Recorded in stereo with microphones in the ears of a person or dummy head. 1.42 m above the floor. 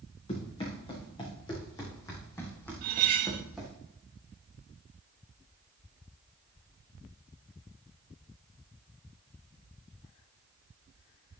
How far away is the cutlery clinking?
About 0.8 m.